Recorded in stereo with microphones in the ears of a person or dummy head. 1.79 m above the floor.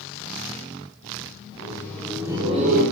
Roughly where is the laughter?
Left.